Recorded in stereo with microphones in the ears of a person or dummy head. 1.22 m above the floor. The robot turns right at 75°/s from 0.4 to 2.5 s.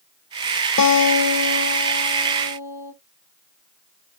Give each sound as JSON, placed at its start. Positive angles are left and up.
{"t": 0.8, "sound": "a guitar", "azimuth_deg": 65, "distance_m": 0.9}